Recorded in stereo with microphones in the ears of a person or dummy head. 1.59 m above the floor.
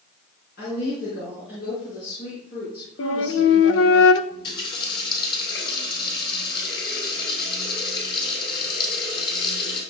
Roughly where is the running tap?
Left.